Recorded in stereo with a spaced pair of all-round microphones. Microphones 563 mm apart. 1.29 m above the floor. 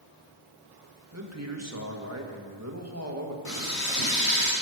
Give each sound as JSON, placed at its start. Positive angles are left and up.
{"t": 1.1, "sound": "a man speaking", "side_deg": -25, "distance_m": 1.6}
{"t": 3.5, "sound": "frying", "side_deg": 75, "distance_m": 4.0}